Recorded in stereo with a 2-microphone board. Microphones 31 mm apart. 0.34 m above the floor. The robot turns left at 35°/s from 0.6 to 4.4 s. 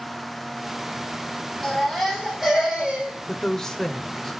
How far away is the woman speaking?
About 1.0 m.